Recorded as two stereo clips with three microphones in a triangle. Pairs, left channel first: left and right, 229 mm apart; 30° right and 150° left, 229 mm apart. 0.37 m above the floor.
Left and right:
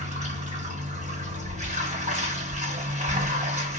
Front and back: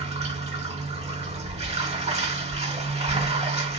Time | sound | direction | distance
0.0 | running water | 145° right | 1.3 m